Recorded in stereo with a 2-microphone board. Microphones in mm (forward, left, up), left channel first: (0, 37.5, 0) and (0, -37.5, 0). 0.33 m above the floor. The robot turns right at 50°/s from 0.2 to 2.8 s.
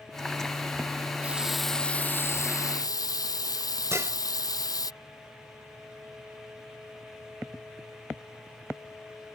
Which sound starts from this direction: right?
Dishes clattering, at 3.9 s.